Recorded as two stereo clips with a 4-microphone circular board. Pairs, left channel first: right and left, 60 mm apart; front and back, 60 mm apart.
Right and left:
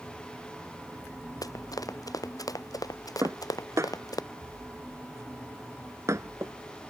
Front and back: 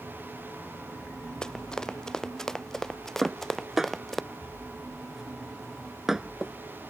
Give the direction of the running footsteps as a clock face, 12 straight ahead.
3 o'clock.